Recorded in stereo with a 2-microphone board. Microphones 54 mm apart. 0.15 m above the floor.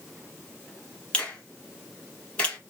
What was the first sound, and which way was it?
A finger snap, 20° left (ahead or behind).